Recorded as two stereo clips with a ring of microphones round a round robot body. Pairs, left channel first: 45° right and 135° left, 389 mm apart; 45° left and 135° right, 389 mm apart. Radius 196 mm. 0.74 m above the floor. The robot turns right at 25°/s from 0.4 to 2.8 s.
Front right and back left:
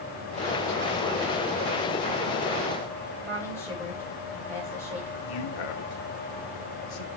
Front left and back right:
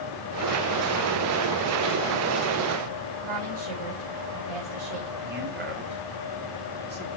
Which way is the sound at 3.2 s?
140° right.